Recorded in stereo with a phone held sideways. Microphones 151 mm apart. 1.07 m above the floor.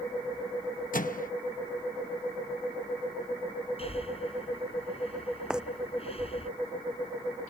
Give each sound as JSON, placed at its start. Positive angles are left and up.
{"t": 0.9, "sound": "a microwave", "side_deg": 65}
{"t": 3.8, "sound": "breathing", "side_deg": 40}
{"t": 5.5, "sound": "footsteps", "side_deg": -5}